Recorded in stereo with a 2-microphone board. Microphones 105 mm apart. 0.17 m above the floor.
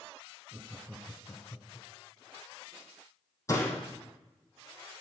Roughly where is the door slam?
Left.